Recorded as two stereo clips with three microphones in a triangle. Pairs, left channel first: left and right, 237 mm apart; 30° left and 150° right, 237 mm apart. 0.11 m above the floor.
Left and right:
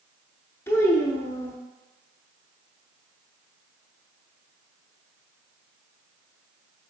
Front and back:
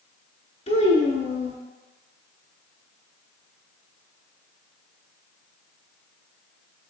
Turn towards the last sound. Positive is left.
turn(degrees=25)